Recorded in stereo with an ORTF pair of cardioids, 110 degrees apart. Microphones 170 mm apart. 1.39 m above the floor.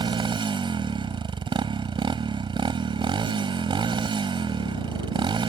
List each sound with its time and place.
0.0 s a motorcycle: 30° right